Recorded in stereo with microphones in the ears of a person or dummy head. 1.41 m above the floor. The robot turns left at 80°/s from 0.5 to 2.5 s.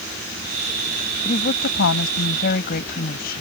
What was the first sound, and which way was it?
A woman speaking, 155° left.